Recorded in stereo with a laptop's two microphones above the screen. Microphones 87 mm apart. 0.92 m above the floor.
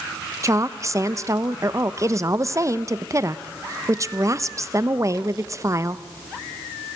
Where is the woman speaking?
35° right (ahead or behind), 0.7 m.